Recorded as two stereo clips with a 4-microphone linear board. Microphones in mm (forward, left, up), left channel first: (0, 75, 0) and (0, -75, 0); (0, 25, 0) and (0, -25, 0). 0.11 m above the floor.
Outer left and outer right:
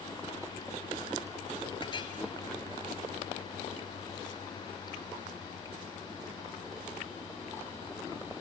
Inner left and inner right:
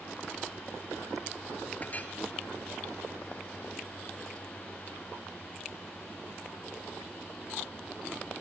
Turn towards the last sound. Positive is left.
turn(degrees=35)  # may be behind; listen again after turning